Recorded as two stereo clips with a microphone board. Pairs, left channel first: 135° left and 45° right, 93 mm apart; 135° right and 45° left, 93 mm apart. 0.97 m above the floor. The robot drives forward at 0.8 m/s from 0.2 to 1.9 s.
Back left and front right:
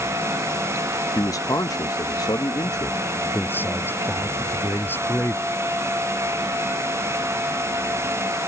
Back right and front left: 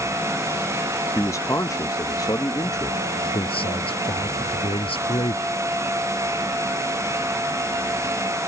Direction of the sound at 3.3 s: 155° right.